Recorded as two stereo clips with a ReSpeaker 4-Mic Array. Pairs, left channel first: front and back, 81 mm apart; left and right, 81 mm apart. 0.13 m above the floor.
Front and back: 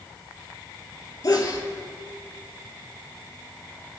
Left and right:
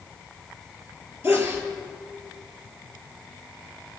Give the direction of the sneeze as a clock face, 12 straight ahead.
1 o'clock.